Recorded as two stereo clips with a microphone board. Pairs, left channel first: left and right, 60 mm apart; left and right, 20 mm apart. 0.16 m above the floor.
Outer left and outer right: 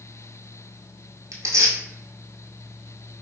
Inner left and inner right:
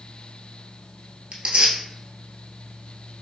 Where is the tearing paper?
75° right (ahead or behind), 0.8 m.